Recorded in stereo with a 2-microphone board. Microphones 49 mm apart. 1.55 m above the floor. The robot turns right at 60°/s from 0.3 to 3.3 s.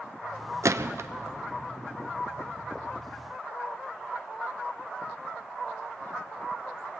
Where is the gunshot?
80° right, 0.6 m; by 1.1 s 65° right (ahead or behind), 0.6 m.